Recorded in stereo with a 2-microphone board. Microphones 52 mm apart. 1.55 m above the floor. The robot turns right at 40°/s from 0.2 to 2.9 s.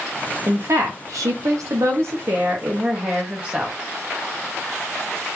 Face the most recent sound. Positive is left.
turn(degrees=-30)